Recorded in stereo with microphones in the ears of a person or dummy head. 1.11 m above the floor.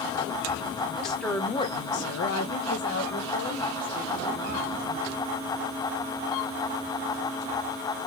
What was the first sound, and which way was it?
A woman speaking, 5° right (ahead or behind).